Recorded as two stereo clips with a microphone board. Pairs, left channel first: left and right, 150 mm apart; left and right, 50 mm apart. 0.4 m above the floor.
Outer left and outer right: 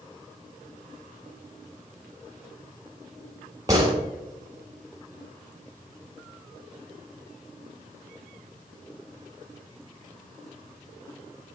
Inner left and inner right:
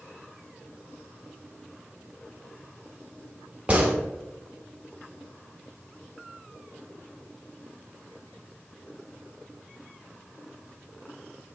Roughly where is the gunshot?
Right.